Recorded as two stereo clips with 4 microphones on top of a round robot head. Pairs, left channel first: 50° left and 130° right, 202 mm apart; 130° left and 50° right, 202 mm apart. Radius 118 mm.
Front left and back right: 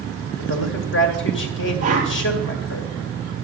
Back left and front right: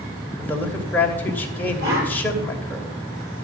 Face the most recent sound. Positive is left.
turn(degrees=-75)